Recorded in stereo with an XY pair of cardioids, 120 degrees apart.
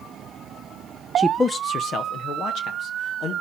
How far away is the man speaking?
About 0.5 m.